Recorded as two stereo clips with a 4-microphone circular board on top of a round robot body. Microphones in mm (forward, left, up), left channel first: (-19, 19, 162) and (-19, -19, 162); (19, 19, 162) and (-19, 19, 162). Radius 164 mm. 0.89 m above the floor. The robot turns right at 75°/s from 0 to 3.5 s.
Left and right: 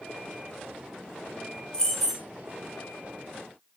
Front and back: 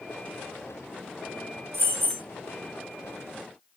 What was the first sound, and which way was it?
Keys jangling, 160° left.